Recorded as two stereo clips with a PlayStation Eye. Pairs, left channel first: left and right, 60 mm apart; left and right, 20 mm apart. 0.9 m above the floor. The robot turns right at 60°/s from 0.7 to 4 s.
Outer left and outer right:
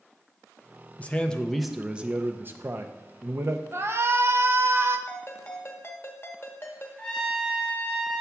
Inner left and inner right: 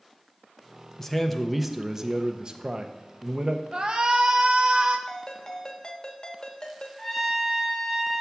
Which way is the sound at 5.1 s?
35° left (ahead or behind).